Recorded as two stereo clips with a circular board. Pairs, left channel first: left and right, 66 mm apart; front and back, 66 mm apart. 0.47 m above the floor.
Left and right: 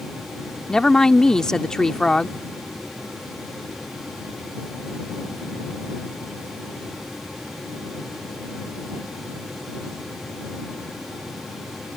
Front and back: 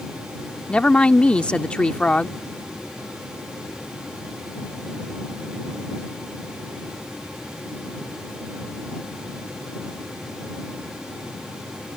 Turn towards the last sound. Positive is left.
turn(degrees=35)